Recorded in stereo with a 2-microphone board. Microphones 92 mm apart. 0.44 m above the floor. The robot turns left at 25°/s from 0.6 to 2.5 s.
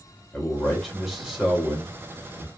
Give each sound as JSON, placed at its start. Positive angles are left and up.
{"t": 0.3, "sound": "a man speaking", "azimuth_deg": 10, "distance_m": 1.9}